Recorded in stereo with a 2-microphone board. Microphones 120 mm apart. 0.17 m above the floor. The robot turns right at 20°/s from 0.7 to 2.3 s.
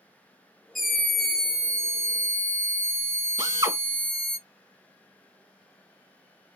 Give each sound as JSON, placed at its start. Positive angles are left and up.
{"t": 0.8, "sound": "a scream", "side_deg": 0, "distance_m": 1.3}
{"t": 3.4, "sound": "a drill", "side_deg": -30, "distance_m": 1.6}